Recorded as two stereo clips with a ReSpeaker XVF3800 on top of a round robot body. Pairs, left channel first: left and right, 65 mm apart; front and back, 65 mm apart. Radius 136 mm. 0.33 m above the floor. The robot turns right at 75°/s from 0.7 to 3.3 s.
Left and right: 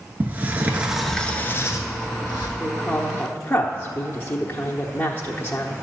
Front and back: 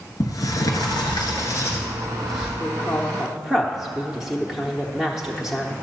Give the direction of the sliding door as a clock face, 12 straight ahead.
1 o'clock.